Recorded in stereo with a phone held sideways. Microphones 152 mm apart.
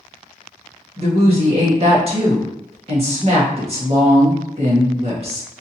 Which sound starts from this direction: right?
A woman speaking, at 1.0 s.